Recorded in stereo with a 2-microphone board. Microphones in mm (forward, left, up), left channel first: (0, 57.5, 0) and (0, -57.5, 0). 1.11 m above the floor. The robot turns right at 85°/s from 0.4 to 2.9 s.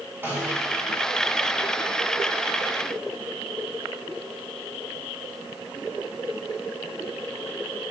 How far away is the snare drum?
About 5 m.